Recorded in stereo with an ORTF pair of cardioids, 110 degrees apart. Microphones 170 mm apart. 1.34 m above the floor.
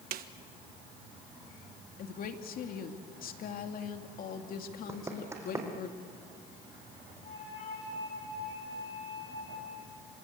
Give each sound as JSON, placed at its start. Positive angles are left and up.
{"t": 0.1, "sound": "a snare drum", "azimuth_deg": -60, "distance_m": 1.4}
{"t": 2.0, "sound": "a woman speaking", "azimuth_deg": 55, "distance_m": 2.5}
{"t": 4.9, "sound": "running footsteps", "azimuth_deg": -15, "distance_m": 4.5}
{"t": 7.2, "sound": "a flute", "azimuth_deg": 50, "distance_m": 8.0}